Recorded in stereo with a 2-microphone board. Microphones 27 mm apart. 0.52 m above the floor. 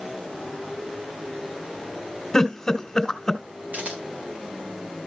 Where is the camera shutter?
65° right (ahead or behind), 5 m.